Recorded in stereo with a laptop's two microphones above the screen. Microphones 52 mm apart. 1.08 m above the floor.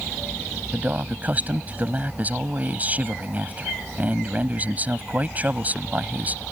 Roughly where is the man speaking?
Right.